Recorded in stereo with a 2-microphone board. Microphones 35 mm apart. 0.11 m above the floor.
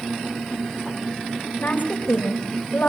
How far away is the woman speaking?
About 7.5 m.